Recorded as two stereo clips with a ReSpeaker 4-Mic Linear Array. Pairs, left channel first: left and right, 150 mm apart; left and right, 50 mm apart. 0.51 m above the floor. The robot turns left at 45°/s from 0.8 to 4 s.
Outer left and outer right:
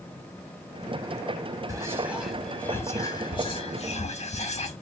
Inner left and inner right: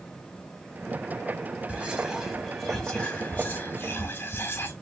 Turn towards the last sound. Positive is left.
turn(degrees=105)